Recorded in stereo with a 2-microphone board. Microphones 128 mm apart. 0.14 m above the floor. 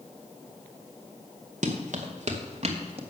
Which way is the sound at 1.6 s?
75° right (ahead or behind).